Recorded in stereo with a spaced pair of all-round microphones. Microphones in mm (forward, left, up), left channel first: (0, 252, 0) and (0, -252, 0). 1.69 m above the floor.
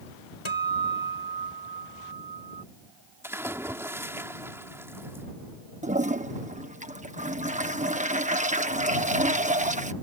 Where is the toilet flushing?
15° right (ahead or behind).